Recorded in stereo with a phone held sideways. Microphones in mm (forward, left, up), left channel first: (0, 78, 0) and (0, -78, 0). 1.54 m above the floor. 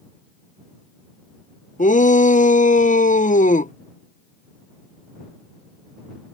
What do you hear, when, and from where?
1.8 s a shout: 55° left (ahead or behind)